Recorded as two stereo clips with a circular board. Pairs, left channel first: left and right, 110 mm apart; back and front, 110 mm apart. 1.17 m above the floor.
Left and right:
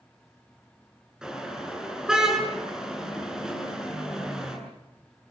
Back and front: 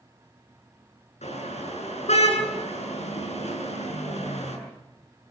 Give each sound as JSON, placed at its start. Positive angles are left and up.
{"t": 1.2, "sound": "a car horn", "azimuth_deg": -175, "distance_m": 8.5}